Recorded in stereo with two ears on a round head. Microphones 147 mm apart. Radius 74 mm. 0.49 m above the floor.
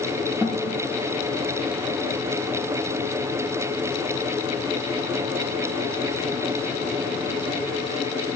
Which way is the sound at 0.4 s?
10° right (ahead or behind).